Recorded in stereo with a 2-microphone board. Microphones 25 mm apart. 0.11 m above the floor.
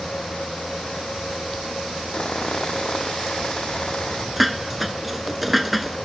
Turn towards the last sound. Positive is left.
turn(degrees=-5)  # may be behind; listen again after turning